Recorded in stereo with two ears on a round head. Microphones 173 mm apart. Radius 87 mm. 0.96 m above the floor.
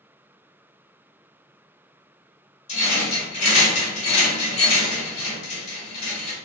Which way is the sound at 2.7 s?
35° left (ahead or behind).